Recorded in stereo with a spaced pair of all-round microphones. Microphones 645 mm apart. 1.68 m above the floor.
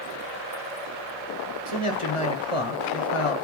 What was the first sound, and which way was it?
A man speaking, 50° left (ahead or behind).